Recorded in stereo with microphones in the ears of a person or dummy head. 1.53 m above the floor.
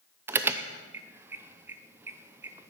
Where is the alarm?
10° right (ahead or behind), 0.6 m.